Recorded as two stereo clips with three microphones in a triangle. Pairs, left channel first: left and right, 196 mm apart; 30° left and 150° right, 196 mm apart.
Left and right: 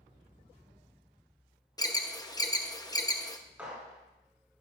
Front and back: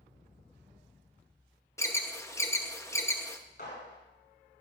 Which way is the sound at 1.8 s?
75° left.